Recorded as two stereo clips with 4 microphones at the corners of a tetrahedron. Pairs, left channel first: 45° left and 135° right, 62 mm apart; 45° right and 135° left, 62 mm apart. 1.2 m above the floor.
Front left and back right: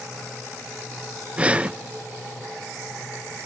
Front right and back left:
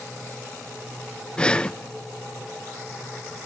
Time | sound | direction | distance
1.4 | breathing | 95° right | 0.5 m